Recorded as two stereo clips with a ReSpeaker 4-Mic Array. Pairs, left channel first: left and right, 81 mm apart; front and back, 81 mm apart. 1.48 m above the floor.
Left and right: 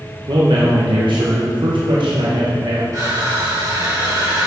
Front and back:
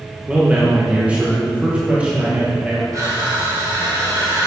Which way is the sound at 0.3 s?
105° right.